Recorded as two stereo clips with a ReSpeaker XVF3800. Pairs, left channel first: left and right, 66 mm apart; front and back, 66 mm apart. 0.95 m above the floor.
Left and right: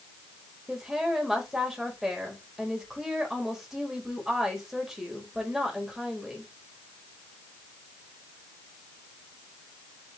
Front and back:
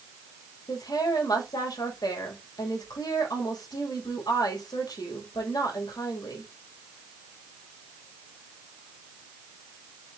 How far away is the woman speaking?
About 4.5 m.